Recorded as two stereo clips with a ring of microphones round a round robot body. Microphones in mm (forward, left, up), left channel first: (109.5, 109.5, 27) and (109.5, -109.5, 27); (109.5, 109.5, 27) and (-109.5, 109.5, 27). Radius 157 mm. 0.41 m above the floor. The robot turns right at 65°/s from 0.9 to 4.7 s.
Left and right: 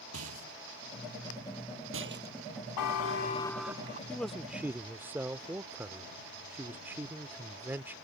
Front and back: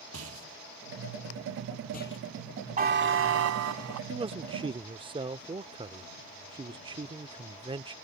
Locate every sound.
0.1 s a rattle: 135° right; by 2.4 s 40° right
2.8 s a buzzer: 125° left; by 4.0 s 155° right
4.1 s a man speaking: 165° left; by 8.0 s 160° right